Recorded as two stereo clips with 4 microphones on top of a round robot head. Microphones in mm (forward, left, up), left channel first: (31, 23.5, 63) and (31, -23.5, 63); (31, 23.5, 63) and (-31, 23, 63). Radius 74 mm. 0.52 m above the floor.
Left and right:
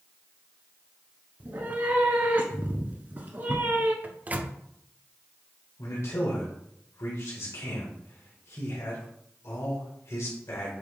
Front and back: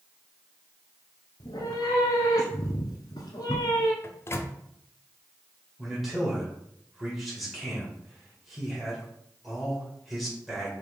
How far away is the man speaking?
About 2 m.